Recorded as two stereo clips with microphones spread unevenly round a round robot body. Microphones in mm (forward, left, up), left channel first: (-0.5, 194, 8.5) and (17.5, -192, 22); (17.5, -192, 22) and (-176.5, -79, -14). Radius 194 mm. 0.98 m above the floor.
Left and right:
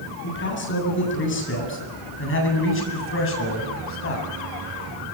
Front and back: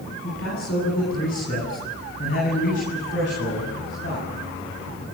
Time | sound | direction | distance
0.2 | a man speaking | 30° left | 10 m